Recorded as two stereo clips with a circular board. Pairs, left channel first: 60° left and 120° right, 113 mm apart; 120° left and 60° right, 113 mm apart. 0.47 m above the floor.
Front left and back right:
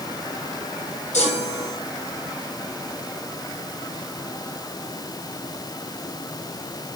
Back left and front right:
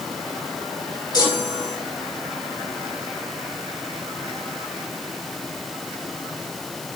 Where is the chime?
65° left, 7.5 m.